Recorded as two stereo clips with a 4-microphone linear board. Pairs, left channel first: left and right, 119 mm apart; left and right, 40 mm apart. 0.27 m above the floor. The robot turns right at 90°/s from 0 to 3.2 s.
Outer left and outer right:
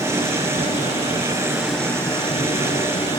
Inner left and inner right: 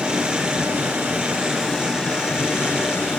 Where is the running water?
155° right, 3.5 m; by 3.2 s 135° left, 3.5 m.